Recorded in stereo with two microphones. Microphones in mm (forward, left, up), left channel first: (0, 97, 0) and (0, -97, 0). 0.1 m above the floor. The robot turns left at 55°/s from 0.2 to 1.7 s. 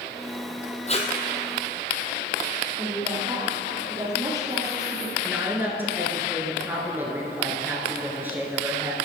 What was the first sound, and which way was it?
Tape being pulled, 35° left (ahead or behind).